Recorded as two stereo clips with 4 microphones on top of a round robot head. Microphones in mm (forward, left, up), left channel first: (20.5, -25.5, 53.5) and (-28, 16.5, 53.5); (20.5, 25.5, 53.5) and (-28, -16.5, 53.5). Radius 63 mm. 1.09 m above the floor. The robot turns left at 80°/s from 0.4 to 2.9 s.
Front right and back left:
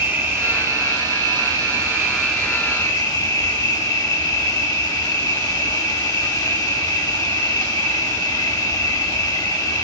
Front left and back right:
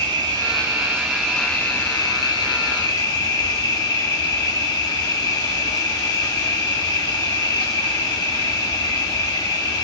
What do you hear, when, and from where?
0.0 s an insect: 160° right, 1.0 m; by 9.8 s straight ahead, 1.0 m